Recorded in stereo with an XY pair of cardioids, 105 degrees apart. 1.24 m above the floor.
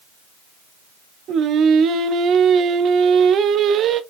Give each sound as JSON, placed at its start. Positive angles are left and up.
{"t": 1.3, "sound": "singing", "azimuth_deg": -70, "distance_m": 0.5}